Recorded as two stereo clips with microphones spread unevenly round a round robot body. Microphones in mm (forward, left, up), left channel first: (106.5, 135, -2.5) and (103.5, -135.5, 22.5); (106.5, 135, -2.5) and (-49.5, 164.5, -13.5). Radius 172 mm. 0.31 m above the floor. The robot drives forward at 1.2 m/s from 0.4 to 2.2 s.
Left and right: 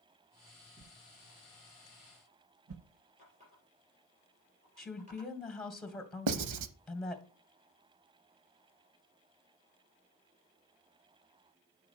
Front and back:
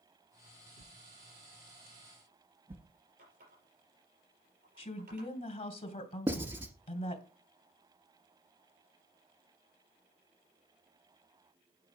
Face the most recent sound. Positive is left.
turn(degrees=-115)